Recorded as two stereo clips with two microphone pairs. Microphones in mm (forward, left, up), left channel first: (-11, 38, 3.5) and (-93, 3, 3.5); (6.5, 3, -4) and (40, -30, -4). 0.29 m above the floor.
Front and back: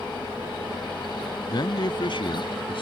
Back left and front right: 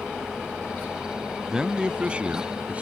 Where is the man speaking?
30° left; by 2.8 s 15° left.